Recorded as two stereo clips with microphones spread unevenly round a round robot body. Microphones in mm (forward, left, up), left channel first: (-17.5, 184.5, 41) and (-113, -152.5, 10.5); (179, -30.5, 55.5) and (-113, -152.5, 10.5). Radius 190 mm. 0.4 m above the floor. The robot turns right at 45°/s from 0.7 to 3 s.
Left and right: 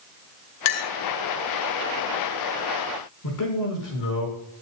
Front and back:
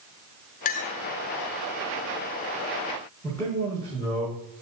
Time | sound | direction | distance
0.7 | a clink | 85° left | 0.9 m
3.2 | a man speaking | 105° left | 5.5 m